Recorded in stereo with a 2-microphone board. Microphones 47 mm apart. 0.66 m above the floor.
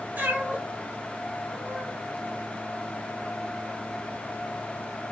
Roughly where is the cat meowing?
Right.